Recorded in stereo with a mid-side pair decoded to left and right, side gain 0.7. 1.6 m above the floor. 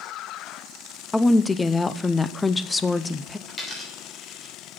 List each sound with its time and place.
1.1 s a woman speaking: 10° left, 0.6 m
3.5 s a dropped coin: 15° left, 3 m